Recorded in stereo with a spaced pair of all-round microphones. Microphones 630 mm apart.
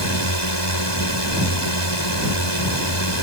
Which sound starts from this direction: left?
A drone, at 0.0 s.